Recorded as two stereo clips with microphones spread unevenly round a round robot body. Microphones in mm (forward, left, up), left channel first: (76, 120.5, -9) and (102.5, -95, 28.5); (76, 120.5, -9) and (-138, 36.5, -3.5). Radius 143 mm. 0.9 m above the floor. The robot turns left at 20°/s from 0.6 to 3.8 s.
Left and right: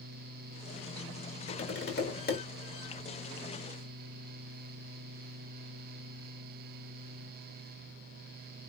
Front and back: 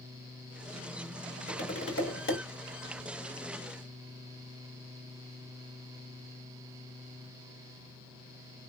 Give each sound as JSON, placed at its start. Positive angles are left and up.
{"t": 1.5, "sound": "tapping", "azimuth_deg": 65, "distance_m": 2.0}